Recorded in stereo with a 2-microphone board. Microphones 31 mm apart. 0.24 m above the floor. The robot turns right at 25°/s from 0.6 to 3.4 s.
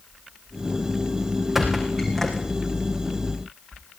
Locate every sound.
1.6 s a squeak: 10° right (ahead or behind), 6.5 m; by 2.5 s 15° left (ahead or behind), 6.5 m